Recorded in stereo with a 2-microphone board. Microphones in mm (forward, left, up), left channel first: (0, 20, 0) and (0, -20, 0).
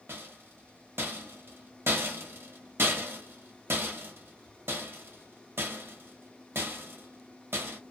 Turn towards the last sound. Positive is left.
turn(degrees=-85)